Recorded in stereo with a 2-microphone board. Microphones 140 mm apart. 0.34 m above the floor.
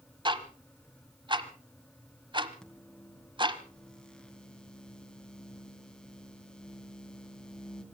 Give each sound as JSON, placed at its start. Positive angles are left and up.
{"t": 0.2, "sound": "ticking", "side_deg": -35, "distance_m": 1.0}
{"t": 2.6, "sound": "a microwave", "side_deg": 5, "distance_m": 3.0}